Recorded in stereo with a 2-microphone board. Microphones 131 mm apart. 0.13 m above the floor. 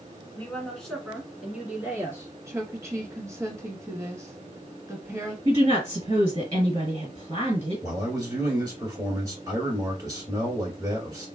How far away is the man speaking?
About 1.9 m.